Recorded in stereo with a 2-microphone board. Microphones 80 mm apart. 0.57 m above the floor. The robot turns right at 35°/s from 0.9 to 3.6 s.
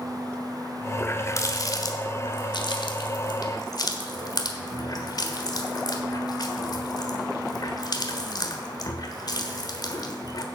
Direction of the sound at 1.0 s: 30° left (ahead or behind).